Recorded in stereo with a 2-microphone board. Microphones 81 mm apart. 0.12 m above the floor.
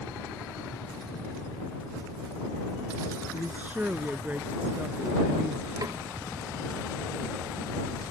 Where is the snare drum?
50° right (ahead or behind).